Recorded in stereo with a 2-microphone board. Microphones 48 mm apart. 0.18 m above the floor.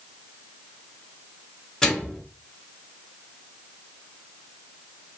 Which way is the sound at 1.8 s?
10° left (ahead or behind).